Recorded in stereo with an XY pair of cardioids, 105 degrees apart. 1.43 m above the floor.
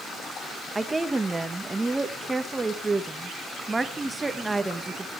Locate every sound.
0.8 s a woman speaking: 20° right, 1.4 m